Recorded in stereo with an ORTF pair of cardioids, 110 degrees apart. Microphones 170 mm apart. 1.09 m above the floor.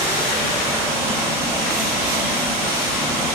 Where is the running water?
35° right, 1.5 m.